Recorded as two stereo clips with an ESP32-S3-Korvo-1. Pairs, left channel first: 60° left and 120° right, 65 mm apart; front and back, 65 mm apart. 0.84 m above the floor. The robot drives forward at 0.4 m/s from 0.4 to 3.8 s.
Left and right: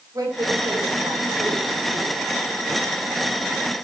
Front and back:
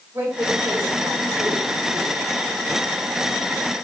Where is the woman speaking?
130° right, 4 m; by 2.2 s 135° right, 4.5 m.